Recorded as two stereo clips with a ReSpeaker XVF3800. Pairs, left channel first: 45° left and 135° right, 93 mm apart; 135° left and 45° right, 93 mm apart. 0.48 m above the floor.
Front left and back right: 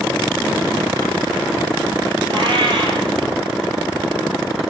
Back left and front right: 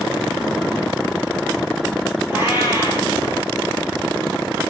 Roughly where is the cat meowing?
Right.